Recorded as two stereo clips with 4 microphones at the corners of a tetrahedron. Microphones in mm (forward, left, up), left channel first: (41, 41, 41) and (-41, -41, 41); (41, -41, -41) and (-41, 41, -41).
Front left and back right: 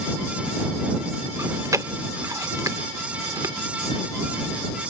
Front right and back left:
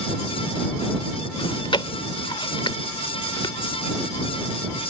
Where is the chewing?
80° right.